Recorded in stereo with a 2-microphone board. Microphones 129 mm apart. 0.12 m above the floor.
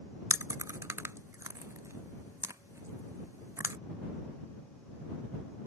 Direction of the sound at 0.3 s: 25° right (ahead or behind).